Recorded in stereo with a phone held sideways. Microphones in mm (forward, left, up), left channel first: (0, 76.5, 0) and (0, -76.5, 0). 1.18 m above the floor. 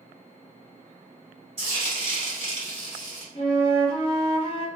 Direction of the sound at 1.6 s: 40° right (ahead or behind).